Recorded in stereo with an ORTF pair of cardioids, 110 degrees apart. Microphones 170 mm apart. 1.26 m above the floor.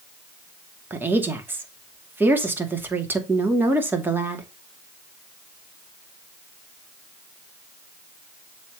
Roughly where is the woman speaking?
Ahead.